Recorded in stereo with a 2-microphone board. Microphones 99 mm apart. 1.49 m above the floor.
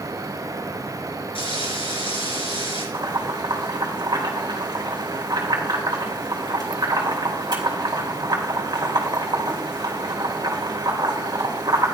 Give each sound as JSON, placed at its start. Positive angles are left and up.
{"t": 1.4, "sound": "frying", "side_deg": 80, "distance_m": 7.0}
{"t": 2.9, "sound": "boiling", "side_deg": -50, "distance_m": 3.0}